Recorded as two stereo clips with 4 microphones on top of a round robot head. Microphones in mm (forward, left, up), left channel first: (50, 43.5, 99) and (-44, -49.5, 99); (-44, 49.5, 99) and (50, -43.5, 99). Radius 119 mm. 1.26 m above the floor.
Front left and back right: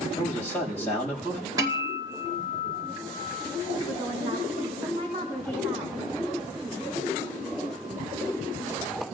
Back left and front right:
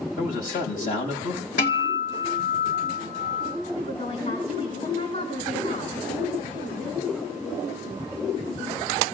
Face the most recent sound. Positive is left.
turn(degrees=165)